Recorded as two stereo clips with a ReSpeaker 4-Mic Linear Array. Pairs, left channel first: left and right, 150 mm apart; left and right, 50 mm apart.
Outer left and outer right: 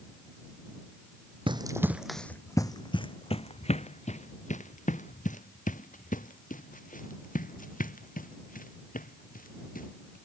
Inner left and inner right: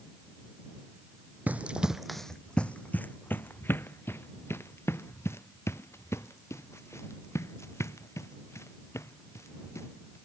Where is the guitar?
I don't hear a guitar.